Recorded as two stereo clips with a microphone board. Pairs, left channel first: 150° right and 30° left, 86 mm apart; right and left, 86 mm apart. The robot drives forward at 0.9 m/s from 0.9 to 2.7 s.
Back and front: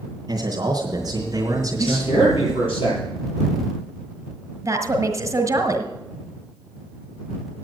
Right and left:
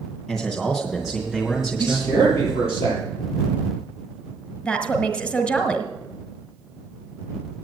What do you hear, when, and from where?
0.3 s a man speaking: straight ahead, 2.5 m
1.8 s a man speaking: 150° right, 7 m
4.6 s a woman speaking: 20° right, 1.5 m